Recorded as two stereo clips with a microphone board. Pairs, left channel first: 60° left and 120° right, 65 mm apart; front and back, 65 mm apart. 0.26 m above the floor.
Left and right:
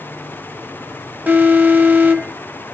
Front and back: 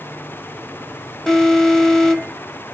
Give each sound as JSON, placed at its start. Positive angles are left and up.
{"t": 1.3, "sound": "an alarm", "azimuth_deg": -80, "distance_m": 0.8}